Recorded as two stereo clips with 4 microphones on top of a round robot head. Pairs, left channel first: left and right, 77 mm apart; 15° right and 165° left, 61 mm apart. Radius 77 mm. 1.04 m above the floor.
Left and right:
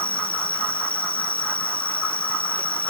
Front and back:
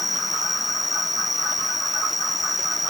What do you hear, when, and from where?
0.0 s an insect: 80° left